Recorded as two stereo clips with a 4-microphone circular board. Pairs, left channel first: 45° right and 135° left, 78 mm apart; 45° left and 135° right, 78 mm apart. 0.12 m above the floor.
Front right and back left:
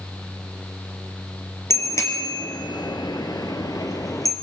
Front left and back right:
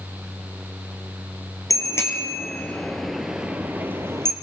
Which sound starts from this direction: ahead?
A bicycle bell, at 1.7 s.